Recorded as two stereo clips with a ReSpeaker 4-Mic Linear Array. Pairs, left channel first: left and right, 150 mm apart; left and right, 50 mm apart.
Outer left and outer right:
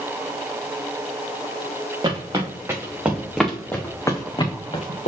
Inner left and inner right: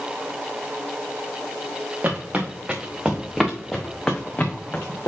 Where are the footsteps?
30° right (ahead or behind), 2 m; by 5.1 s 50° left (ahead or behind), 1.6 m.